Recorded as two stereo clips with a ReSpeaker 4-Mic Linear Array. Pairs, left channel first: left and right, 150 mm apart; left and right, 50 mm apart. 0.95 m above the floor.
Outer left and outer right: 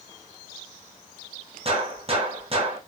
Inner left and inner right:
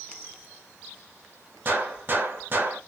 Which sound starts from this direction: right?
A gunshot, at 1.6 s.